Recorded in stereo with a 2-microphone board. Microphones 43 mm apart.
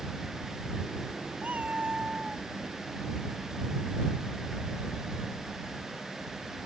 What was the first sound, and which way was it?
A cat meowing, 35° right (ahead or behind).